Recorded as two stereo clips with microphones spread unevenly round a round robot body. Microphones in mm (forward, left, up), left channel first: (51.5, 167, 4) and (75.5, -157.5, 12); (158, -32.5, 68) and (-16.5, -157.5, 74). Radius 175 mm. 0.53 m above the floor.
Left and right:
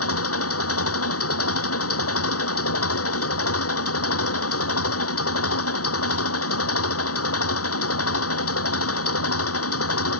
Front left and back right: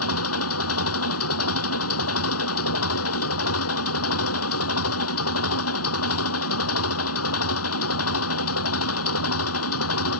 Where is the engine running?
45° left.